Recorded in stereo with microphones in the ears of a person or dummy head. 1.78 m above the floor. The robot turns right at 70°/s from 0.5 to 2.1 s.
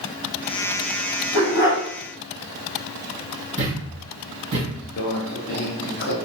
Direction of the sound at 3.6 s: 35° right (ahead or behind).